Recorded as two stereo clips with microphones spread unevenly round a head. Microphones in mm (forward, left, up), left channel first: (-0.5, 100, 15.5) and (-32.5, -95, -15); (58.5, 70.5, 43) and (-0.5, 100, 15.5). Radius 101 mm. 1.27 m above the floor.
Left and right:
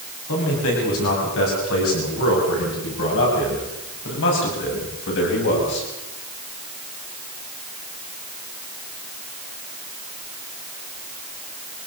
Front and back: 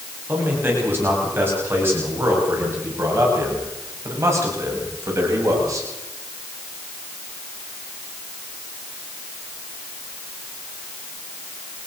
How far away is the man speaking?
About 9.5 m.